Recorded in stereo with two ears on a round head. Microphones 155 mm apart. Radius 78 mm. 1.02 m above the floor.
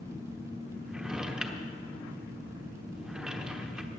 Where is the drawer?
5° right (ahead or behind), 1.0 m.